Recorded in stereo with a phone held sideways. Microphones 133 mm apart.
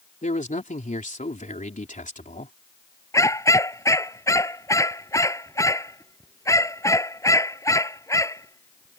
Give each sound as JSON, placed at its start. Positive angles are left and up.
{"t": 0.2, "sound": "a man speaking", "side_deg": 70}
{"t": 3.1, "sound": "a dog barking", "side_deg": 25}